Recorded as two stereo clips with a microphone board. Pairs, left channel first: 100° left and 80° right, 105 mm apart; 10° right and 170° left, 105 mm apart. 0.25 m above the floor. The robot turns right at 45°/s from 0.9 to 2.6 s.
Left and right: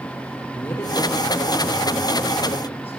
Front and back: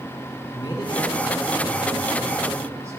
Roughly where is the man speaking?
Ahead left.